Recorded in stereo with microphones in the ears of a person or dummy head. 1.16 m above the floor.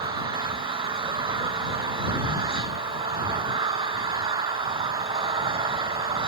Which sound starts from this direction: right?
An engine running, at 0.0 s.